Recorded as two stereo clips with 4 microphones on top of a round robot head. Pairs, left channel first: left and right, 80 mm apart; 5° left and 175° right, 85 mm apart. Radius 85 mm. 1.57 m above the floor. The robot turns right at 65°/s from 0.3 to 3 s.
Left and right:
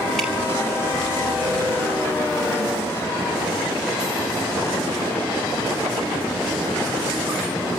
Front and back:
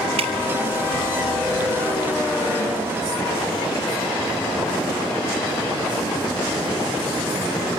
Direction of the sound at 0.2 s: Straight behind.